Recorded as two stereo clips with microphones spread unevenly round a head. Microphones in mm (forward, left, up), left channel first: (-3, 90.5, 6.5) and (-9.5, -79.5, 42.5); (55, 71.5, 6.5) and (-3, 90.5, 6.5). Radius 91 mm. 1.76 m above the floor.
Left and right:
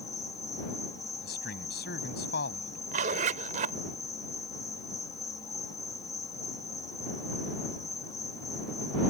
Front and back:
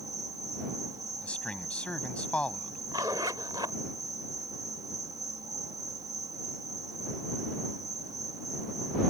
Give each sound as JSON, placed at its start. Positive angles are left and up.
{"t": 0.0, "sound": "an insect", "azimuth_deg": 160}
{"t": 1.2, "sound": "a man speaking", "azimuth_deg": 50}
{"t": 2.9, "sound": "a zipper", "azimuth_deg": -135}